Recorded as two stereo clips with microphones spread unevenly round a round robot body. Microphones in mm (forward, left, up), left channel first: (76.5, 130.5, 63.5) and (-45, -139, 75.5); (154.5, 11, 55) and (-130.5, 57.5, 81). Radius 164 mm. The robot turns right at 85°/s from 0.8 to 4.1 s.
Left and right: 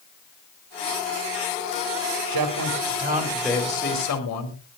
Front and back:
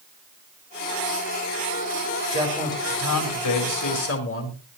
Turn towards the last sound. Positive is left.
turn(degrees=30)